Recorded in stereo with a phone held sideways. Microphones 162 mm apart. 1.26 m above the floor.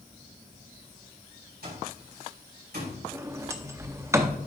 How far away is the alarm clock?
About 4.5 m.